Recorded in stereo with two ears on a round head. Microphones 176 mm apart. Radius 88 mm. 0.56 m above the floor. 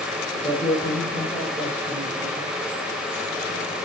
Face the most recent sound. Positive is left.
turn(degrees=10)  # may be behind; listen again after turning